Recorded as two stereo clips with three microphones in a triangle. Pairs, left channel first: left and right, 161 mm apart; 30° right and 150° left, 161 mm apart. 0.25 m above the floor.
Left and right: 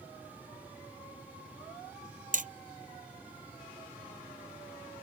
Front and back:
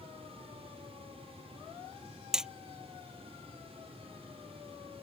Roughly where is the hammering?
Behind right.